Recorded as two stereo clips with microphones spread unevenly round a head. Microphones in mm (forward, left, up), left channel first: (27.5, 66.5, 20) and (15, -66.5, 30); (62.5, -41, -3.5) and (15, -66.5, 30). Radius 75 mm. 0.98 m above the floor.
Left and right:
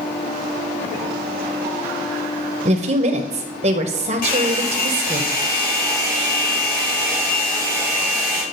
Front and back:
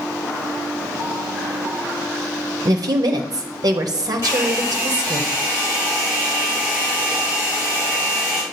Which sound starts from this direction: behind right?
A woman speaking, at 2.6 s.